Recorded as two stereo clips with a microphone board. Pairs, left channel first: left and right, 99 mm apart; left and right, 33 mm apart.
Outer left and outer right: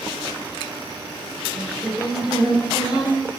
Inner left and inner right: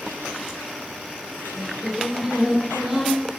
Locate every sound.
1.6 s singing: 5° right (ahead or behind), 1.5 m